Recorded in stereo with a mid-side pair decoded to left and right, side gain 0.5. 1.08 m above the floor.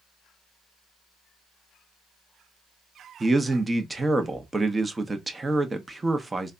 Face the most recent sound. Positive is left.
turn(degrees=-20)